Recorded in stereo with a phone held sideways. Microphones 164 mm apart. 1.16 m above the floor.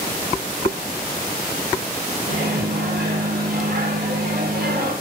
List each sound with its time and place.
2.3 s a microwave: 70° right (ahead or behind), 0.5 m